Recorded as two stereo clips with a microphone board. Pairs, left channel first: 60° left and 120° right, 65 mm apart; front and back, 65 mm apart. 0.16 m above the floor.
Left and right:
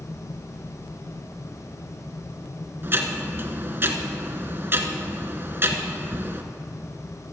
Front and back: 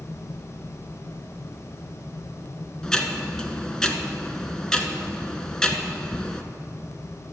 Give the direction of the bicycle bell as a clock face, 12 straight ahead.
I don't hear a bicycle bell.